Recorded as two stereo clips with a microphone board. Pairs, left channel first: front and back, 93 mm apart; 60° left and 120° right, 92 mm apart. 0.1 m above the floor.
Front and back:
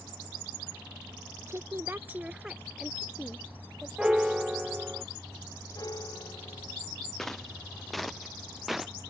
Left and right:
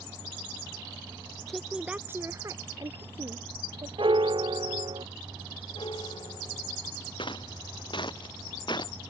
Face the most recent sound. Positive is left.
turn(degrees=90)